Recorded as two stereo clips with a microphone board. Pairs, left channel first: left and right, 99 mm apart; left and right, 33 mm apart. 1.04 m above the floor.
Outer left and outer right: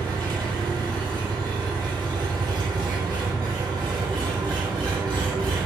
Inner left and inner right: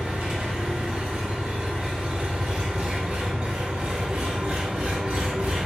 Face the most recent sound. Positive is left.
turn(degrees=-50)  # may be behind; listen again after turning